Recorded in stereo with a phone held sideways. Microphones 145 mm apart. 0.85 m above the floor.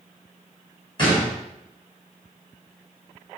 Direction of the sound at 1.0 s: 30° left (ahead or behind).